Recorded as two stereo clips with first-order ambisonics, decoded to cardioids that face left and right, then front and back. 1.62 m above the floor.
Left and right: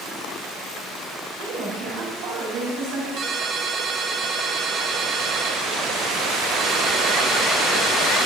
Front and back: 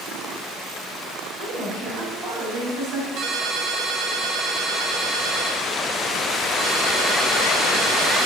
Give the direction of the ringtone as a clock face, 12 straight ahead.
5 o'clock.